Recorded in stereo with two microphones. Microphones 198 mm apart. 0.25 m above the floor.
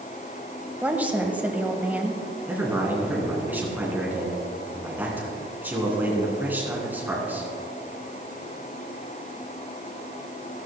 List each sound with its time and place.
0.8 s a woman speaking: 5° right (ahead or behind), 1.2 m
2.5 s a man speaking: 10° right (ahead or behind), 3 m